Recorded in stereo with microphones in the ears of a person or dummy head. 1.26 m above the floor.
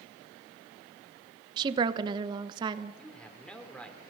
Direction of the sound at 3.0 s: 10° left (ahead or behind).